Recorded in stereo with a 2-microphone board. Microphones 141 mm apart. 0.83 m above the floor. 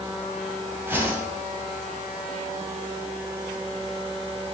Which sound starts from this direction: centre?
A whoosh, at 0.9 s.